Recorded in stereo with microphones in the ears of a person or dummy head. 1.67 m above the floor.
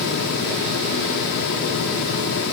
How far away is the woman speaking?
No woman speaking in this recording.